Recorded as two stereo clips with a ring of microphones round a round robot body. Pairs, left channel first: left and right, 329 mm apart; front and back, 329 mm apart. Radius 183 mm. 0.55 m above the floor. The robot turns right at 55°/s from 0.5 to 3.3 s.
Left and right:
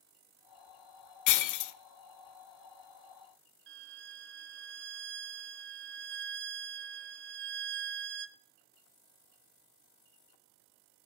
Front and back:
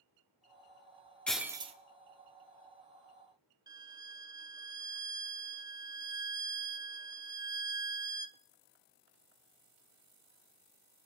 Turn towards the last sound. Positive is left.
turn(degrees=-110)